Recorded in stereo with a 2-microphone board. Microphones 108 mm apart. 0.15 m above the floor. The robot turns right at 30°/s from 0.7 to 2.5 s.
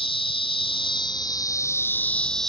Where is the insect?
125° left; by 2.5 s 175° left.